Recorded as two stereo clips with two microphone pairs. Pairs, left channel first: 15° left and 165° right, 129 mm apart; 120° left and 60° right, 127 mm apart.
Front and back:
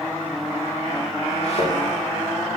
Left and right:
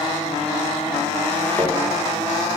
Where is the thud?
45° left, 7.5 m.